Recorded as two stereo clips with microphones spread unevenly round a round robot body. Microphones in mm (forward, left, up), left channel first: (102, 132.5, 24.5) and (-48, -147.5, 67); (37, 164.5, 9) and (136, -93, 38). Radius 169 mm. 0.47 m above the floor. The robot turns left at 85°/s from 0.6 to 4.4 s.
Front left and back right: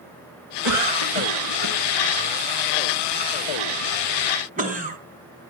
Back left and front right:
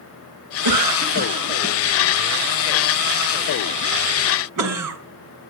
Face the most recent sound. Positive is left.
turn(degrees=-50)